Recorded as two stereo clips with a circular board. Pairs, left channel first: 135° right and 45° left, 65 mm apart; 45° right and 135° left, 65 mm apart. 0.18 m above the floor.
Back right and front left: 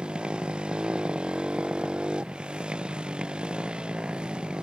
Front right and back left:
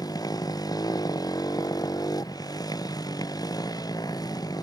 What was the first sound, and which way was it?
A motorcycle, 30° right.